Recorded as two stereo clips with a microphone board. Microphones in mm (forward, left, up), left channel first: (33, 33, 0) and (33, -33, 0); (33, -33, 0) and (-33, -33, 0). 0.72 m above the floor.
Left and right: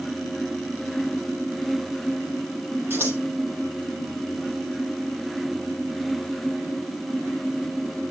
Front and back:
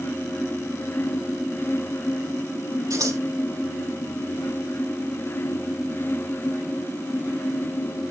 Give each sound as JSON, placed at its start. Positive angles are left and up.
{"t": 2.9, "sound": "scissors", "azimuth_deg": -150, "distance_m": 7.5}